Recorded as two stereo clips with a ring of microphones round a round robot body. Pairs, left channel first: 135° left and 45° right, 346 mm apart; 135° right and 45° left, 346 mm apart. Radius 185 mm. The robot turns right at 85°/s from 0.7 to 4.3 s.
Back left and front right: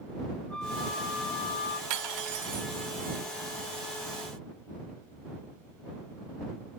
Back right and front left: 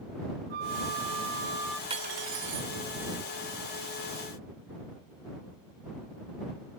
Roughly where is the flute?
Ahead left.